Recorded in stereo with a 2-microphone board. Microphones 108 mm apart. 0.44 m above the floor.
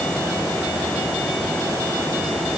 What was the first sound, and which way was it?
Only background noise.